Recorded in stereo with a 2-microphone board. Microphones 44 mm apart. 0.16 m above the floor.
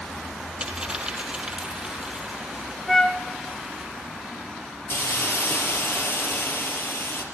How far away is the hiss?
About 4.5 m.